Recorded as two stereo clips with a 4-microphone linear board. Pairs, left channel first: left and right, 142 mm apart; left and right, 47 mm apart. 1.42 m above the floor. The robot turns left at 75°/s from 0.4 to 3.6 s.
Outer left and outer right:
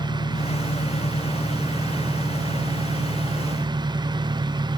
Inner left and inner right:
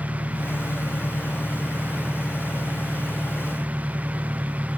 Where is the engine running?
100° left; by 4.8 s 140° right.